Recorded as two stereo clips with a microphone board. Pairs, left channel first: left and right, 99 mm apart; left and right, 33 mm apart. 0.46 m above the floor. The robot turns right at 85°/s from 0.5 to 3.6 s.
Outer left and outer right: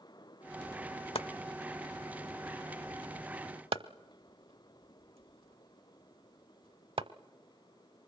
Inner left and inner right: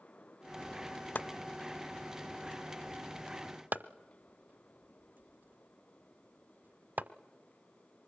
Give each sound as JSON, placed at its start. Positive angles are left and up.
{"t": 1.1, "sound": "chopping", "side_deg": 75, "distance_m": 0.7}